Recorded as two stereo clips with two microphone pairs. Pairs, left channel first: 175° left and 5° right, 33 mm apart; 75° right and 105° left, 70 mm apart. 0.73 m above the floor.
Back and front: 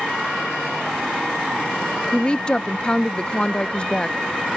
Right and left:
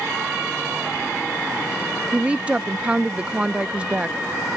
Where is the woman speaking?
160° left.